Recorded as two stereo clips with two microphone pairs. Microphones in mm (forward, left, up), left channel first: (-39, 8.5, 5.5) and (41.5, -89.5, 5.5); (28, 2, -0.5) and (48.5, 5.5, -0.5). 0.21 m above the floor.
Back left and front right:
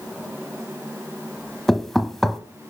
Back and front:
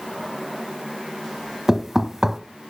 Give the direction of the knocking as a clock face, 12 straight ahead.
11 o'clock.